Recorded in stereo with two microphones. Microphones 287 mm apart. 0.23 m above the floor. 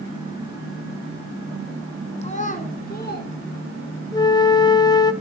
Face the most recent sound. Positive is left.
turn(degrees=15)  # may be behind; listen again after turning